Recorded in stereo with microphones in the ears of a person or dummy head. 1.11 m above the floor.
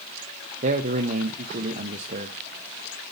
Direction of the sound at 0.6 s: 40° right (ahead or behind).